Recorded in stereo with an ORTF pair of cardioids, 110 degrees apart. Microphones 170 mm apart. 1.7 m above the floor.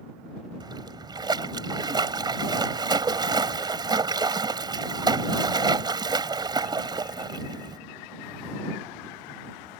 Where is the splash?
25° right.